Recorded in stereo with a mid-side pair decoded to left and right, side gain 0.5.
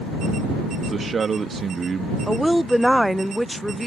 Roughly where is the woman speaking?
Ahead.